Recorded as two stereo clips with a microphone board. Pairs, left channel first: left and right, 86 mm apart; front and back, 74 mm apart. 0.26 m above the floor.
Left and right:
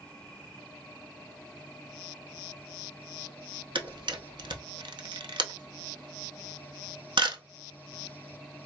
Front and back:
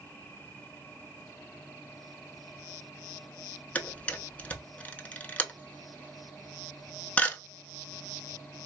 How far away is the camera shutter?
About 0.6 m.